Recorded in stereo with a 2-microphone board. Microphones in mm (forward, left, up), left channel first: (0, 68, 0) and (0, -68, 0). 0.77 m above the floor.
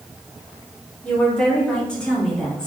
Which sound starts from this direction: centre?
A woman speaking, at 1.0 s.